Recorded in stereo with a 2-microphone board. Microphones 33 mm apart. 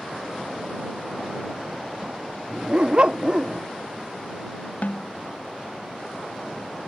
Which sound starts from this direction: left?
A snare drum, at 4.8 s.